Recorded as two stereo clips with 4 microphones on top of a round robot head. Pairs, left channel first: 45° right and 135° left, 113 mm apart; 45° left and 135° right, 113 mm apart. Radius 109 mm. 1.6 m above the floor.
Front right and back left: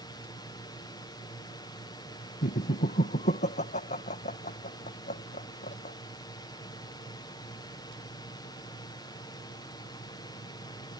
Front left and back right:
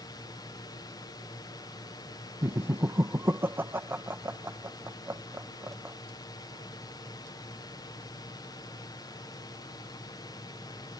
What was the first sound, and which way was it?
A drone, straight ahead.